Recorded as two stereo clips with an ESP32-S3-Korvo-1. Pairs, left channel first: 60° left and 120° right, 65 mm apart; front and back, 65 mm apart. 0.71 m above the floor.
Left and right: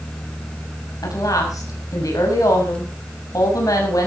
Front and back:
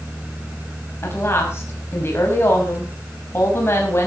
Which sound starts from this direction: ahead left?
A woman speaking, at 1.0 s.